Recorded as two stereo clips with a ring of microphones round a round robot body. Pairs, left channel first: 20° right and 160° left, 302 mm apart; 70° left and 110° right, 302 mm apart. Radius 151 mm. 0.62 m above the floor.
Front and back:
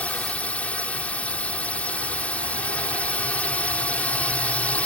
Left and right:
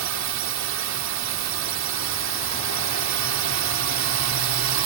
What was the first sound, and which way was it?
A drone, 105° right.